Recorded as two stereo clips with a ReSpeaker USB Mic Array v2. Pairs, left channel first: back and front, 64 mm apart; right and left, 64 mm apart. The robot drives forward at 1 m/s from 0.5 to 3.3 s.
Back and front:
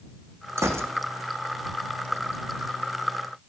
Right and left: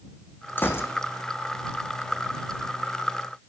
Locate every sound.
0.6 s a gunshot: 35° right, 1.6 m; by 0.9 s 45° right, 1.4 m